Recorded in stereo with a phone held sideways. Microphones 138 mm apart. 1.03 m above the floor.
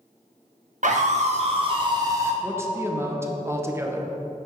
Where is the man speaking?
20° right (ahead or behind), 0.7 m.